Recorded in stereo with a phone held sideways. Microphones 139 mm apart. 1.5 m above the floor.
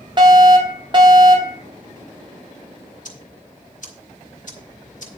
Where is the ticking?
65° left (ahead or behind), 3 m.